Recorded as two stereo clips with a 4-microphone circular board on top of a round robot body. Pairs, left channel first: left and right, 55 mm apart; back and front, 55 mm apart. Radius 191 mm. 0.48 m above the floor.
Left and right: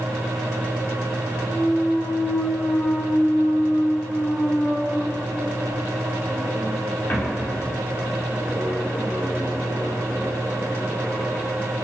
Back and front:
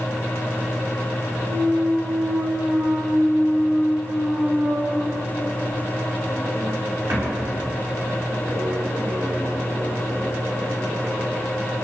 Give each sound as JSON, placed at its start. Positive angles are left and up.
{"t": 1.5, "sound": "a clunk", "azimuth_deg": 35, "distance_m": 0.7}